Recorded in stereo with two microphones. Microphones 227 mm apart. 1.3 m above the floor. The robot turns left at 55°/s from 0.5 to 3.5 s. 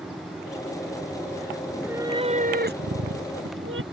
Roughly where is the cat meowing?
Ahead.